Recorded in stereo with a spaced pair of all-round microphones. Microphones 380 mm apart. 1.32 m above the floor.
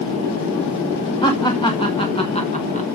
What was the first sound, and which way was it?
Laughter, 10° left (ahead or behind).